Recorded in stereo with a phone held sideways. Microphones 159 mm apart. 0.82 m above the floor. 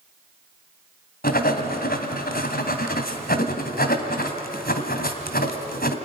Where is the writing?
70° left (ahead or behind), 2 m.